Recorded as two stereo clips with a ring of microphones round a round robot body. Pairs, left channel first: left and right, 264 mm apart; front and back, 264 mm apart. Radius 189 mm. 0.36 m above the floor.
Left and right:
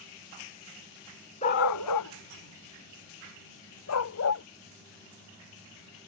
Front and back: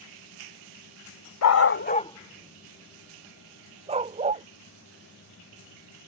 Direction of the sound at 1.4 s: 20° left.